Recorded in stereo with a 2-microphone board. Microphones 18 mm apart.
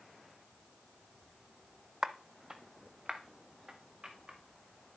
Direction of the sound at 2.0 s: 30° right (ahead or behind).